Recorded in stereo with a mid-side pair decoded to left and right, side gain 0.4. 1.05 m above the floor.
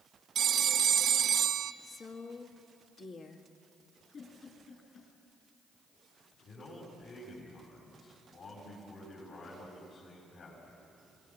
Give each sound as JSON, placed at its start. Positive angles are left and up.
{"t": 0.3, "sound": "a phone ringing", "azimuth_deg": -65, "distance_m": 0.9}
{"t": 1.8, "sound": "a woman speaking", "azimuth_deg": 60, "distance_m": 2.0}
{"t": 4.1, "sound": "a giggle", "azimuth_deg": 45, "distance_m": 6.5}
{"t": 6.4, "sound": "a man speaking", "azimuth_deg": 65, "distance_m": 7.0}